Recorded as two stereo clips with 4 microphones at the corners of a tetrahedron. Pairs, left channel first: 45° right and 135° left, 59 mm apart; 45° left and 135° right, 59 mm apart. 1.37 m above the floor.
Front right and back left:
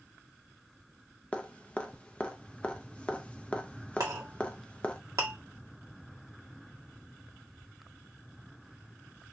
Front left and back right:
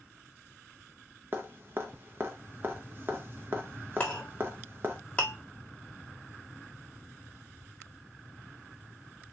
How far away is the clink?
About 1.5 m.